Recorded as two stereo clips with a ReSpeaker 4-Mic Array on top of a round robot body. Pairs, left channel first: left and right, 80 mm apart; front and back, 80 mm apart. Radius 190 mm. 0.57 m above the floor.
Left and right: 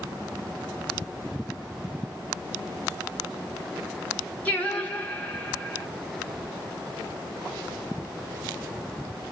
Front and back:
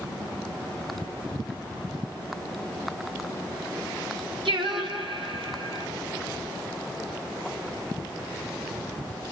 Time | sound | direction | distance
4.5 | singing | 165° left | 1.9 m